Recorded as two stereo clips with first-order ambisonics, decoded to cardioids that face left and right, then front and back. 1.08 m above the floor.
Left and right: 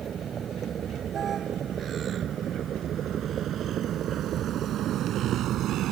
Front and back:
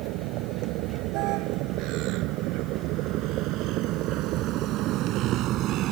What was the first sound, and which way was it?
A vehicle, 155° right.